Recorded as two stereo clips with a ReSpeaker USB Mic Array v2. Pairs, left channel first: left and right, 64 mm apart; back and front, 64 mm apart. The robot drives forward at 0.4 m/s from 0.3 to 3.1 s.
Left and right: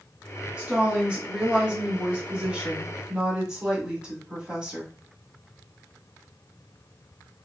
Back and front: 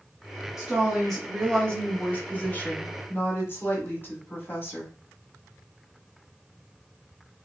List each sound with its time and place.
0.6 s a woman speaking: 70° right, 1.3 m; by 4.9 s 155° right, 1.5 m